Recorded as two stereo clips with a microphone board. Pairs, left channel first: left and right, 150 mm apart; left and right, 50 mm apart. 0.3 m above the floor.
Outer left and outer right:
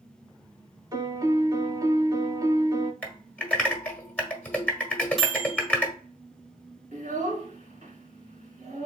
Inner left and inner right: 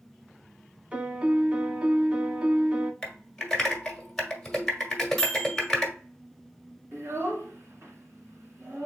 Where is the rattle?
I don't hear a rattle.